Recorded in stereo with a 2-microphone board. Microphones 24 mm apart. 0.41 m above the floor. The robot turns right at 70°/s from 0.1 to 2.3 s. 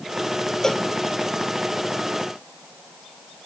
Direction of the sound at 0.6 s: 15° left (ahead or behind).